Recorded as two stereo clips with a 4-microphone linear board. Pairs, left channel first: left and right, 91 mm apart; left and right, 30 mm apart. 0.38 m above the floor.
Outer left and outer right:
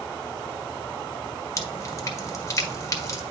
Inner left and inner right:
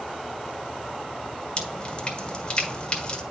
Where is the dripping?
35° left (ahead or behind), 1.4 m.